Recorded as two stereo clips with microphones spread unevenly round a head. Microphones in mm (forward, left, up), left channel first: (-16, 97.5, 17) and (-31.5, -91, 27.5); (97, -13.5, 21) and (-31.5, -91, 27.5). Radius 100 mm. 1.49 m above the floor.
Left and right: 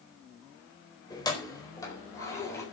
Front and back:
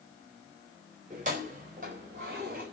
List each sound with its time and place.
1.1 s keys jangling: 155° left, 4 m; by 2.6 s 160° left, 6.5 m